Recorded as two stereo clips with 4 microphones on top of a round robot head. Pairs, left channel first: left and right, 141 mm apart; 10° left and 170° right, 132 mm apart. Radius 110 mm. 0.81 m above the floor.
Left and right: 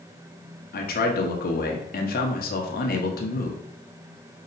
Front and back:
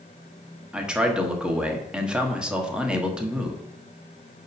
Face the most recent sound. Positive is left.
turn(degrees=105)